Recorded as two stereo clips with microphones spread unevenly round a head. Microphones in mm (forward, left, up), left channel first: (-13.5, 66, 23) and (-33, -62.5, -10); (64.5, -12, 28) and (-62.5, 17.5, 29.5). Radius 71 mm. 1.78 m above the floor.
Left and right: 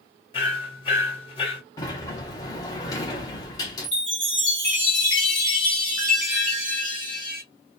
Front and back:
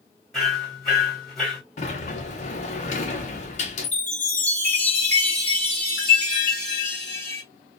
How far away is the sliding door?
About 0.7 m.